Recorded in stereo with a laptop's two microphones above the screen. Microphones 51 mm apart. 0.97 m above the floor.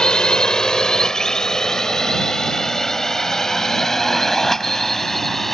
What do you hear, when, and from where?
0.0 s a drone: 15° left (ahead or behind); by 5.5 s 5° left (ahead or behind)